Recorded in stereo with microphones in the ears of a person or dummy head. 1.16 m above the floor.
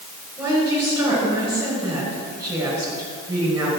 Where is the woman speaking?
10° right (ahead or behind), 5 m.